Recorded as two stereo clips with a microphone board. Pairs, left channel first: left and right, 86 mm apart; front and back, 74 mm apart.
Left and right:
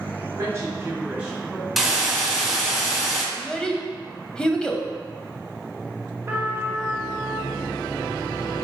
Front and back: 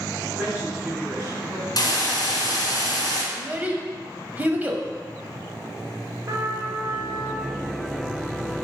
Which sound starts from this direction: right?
A woman speaking, at 0.3 s.